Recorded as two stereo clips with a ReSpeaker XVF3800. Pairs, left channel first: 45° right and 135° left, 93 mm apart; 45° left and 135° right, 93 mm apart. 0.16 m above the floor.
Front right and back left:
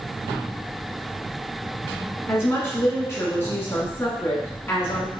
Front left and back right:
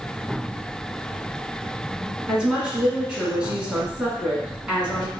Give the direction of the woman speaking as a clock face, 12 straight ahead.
2 o'clock.